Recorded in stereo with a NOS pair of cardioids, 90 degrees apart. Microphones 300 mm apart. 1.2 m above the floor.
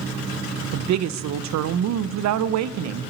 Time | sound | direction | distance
0.7 | a woman speaking | 65° right | 0.6 m